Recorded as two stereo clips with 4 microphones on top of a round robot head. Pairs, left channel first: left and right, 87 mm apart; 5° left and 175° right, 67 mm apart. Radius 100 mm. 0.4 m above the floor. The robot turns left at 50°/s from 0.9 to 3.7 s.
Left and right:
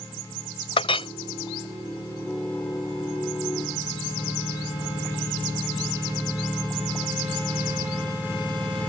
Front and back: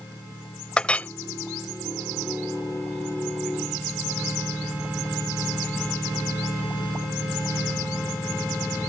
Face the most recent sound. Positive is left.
turn(degrees=-60)